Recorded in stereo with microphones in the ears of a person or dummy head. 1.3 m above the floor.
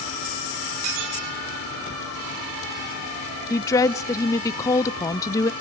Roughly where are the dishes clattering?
Right.